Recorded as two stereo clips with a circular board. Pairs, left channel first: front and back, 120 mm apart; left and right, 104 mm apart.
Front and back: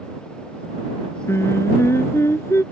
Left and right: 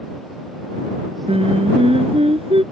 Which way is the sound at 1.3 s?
70° right.